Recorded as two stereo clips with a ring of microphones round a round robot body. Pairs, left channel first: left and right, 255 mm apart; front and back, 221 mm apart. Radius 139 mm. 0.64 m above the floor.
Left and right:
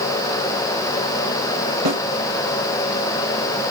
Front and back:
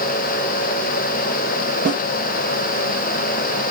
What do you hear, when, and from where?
1.9 s a snare drum: 120° right, 3 m